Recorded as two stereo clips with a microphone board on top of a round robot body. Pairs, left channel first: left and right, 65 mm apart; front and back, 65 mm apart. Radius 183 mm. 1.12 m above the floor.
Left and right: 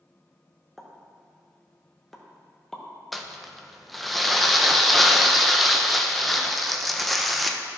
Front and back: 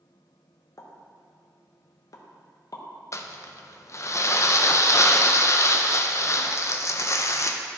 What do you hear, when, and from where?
0.8 s a pop: 5° left, 1.0 m
3.1 s crumpling: straight ahead, 0.7 m